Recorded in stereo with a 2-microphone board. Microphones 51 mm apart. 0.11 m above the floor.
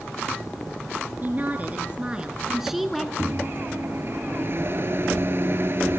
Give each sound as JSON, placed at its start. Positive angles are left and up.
{"t": 1.2, "sound": "a woman speaking", "side_deg": -40, "distance_m": 2.0}
{"t": 3.2, "sound": "a microwave", "side_deg": -50, "distance_m": 1.3}